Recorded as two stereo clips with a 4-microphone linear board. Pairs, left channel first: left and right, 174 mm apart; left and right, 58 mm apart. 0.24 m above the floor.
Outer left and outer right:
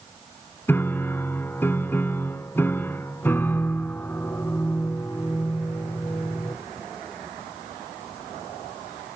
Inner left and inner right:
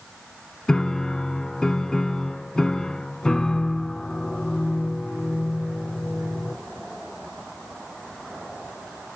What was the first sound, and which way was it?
A piano, 15° left (ahead or behind).